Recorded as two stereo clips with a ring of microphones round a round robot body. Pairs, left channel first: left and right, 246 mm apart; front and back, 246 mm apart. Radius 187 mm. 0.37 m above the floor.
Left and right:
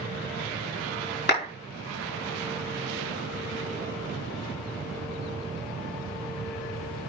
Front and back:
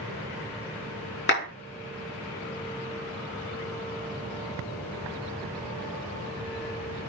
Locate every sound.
1.3 s a clap: 40° left, 5 m